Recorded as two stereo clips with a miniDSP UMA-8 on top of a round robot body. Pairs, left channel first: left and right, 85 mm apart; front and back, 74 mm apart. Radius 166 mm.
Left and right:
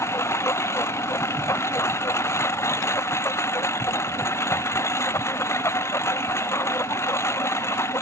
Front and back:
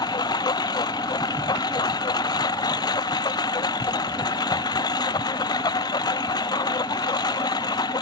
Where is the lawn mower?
30° left.